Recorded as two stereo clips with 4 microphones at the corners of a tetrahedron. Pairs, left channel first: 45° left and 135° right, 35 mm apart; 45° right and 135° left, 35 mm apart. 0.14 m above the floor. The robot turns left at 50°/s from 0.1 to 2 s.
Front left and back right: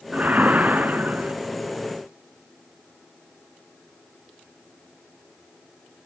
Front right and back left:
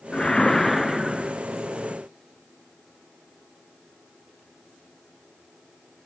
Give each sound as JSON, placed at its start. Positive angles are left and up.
{"t": 0.1, "sound": "a whoosh", "azimuth_deg": -105, "distance_m": 0.7}